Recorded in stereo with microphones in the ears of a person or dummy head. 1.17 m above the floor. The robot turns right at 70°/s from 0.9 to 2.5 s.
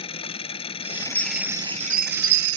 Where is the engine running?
145° left; by 2.6 s 100° right.